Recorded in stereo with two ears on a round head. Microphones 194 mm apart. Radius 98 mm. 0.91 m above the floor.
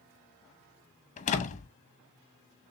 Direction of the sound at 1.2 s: 35° left (ahead or behind).